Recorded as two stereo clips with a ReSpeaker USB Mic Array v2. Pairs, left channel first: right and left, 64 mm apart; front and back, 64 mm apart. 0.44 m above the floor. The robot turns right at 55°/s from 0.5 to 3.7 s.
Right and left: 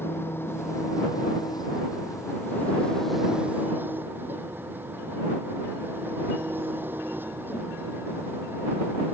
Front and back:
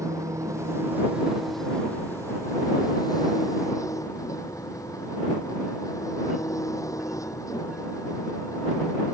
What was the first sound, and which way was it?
An engine running, 145° right.